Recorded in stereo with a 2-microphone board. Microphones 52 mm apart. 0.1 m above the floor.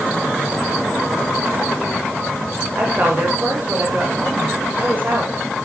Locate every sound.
2.8 s a woman speaking: 35° right (ahead or behind), 7.5 m